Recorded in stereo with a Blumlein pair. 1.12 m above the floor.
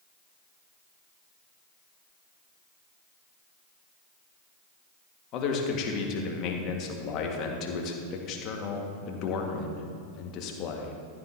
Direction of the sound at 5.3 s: 35° left.